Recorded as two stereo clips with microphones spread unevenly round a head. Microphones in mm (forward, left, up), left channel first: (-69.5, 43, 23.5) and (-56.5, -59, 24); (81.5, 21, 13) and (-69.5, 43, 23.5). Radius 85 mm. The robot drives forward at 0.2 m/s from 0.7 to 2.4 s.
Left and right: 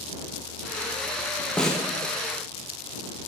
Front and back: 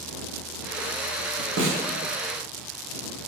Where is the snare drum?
Straight behind, 0.7 m.